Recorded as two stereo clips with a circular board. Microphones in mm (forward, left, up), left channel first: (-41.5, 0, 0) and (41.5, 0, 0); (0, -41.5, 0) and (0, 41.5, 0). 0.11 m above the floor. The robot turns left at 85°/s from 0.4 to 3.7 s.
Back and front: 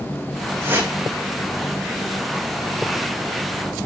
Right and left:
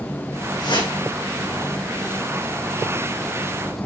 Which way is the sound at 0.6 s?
60° right.